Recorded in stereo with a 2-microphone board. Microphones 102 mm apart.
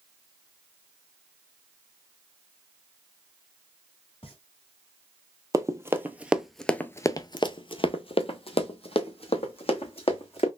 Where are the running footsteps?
30° right (ahead or behind), 0.9 m; by 10.5 s 65° left (ahead or behind), 2 m.